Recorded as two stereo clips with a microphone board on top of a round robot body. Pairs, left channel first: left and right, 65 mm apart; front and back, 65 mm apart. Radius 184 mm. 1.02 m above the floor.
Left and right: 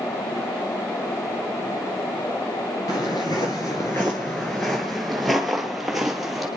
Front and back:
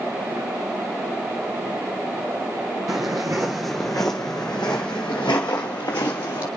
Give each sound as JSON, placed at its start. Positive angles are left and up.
{"t": 2.9, "sound": "footsteps", "azimuth_deg": 135, "distance_m": 1.1}